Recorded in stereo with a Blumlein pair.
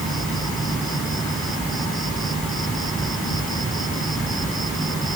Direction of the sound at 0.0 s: 15° right.